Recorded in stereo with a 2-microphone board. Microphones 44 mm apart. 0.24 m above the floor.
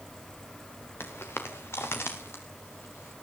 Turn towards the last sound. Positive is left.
turn(degrees=80)